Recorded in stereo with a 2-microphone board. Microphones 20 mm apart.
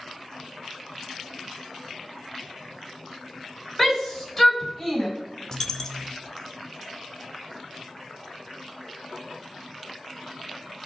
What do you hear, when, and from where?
3.8 s a shout: 5° right (ahead or behind), 3 m
5.5 s a dropped coin: 30° left (ahead or behind), 0.8 m